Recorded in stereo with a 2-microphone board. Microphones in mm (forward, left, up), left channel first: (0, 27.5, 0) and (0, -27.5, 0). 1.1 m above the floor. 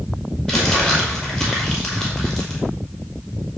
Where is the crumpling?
15° left (ahead or behind), 5.5 m.